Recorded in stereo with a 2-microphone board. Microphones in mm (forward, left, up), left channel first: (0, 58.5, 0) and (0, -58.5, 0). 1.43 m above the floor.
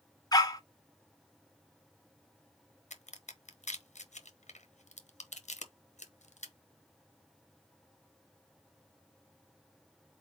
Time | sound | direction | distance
0.3 | a dog barking | 30° left (ahead or behind) | 0.9 m
2.9 | a crack | 80° left | 0.9 m